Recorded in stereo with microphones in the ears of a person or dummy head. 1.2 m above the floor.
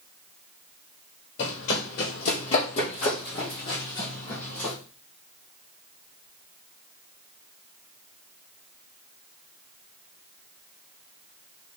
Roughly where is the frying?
No frying in this recording.